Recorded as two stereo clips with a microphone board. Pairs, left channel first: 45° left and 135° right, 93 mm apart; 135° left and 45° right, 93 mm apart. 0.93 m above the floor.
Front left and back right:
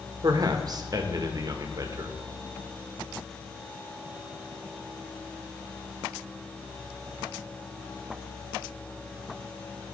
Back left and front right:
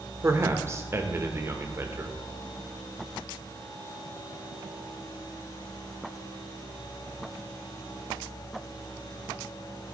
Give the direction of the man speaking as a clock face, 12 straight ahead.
3 o'clock.